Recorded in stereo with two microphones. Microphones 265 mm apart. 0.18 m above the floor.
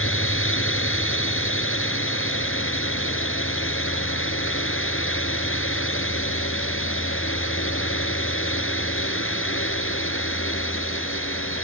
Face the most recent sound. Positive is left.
turn(degrees=50)  # may be behind; listen again after turning